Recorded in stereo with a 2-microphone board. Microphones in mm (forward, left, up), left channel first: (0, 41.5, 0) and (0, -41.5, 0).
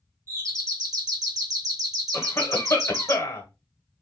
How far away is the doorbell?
About 1.9 m.